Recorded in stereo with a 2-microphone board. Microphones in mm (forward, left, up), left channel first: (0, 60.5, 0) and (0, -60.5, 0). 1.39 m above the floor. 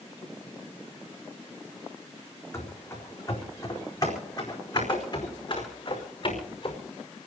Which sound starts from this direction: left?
Running footsteps, at 2.5 s.